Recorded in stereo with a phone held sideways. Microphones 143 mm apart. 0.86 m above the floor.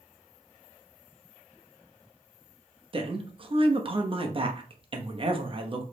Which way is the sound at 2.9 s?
40° right (ahead or behind).